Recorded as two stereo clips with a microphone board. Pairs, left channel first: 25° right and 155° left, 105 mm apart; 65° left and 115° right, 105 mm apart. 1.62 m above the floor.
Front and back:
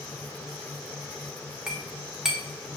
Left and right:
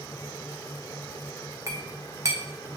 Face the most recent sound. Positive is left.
turn(degrees=-125)